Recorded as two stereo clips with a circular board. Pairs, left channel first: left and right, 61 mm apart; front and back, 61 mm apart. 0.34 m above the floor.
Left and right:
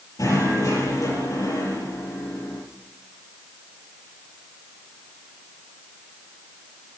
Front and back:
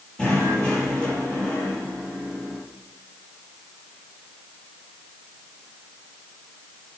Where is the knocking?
75° left, 6.5 m.